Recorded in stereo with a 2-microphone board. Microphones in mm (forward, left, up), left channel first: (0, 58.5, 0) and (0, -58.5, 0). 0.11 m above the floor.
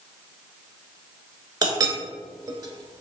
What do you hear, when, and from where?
1.6 s a clink: 35° right (ahead or behind), 0.7 m